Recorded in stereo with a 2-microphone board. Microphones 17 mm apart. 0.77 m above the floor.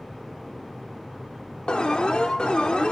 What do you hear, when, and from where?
1.7 s an alarm: 65° left (ahead or behind), 1.9 m